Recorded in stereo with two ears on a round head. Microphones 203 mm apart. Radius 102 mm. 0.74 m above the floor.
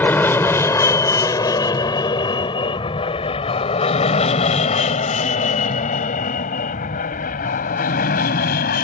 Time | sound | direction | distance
0.0 | an aircraft | 10° left (ahead or behind) | ?